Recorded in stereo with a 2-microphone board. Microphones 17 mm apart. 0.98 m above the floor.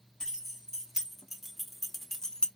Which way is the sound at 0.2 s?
40° right (ahead or behind).